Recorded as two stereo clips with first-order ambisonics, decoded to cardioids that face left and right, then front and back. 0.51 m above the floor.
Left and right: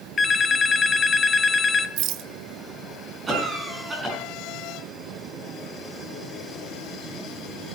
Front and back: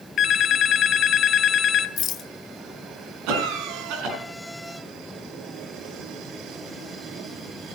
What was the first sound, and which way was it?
A phone ringing, 30° left.